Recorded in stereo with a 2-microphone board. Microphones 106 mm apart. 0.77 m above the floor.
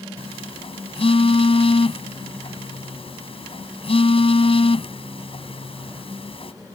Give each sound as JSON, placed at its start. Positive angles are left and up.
{"t": 0.2, "sound": "a phone buzzing", "side_deg": 60}